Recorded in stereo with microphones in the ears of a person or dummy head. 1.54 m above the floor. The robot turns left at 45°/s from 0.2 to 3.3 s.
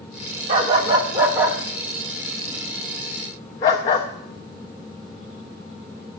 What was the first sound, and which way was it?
A dog barking, 20° right (ahead or behind).